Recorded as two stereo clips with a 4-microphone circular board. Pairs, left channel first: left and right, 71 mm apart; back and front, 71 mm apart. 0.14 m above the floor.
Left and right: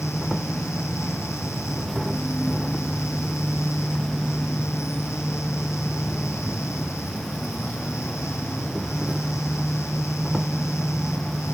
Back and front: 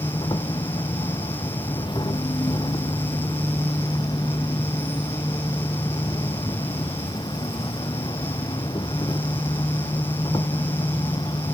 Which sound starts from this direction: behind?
An insect, at 0.0 s.